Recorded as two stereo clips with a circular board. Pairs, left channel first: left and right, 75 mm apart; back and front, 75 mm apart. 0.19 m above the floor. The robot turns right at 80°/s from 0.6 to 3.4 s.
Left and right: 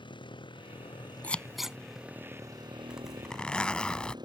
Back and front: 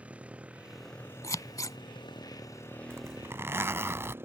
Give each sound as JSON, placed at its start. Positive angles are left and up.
{"t": 0.0, "sound": "a motorcycle", "azimuth_deg": 75}
{"t": 1.2, "sound": "scissors", "azimuth_deg": 155}
{"t": 2.9, "sound": "a zipper", "azimuth_deg": -20}